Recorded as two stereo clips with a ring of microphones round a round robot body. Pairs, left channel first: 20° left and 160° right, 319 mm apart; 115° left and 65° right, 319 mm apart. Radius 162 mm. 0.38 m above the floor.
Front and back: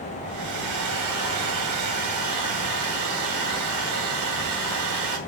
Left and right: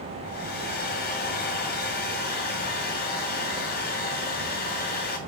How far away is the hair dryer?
About 2.5 m.